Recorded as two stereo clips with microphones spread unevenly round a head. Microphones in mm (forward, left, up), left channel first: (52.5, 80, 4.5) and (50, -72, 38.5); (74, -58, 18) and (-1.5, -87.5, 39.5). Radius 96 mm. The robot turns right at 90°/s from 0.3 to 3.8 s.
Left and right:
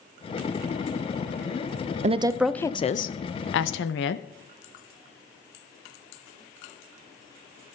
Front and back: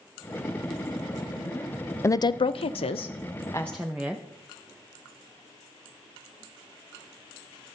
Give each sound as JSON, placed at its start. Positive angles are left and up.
{"t": 2.0, "sound": "a woman speaking", "azimuth_deg": -40, "distance_m": 0.5}